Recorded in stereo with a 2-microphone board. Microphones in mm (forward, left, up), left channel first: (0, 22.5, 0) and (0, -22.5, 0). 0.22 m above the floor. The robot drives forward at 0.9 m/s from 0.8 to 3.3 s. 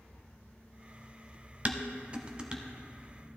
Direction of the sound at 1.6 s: 30° right (ahead or behind).